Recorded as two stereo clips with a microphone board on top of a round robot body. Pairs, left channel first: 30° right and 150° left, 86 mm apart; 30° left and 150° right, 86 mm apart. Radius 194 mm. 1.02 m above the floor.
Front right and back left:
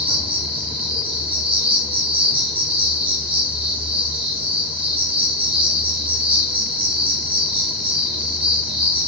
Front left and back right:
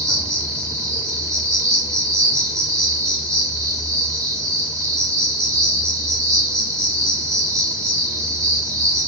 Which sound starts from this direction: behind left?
An insect, at 0.0 s.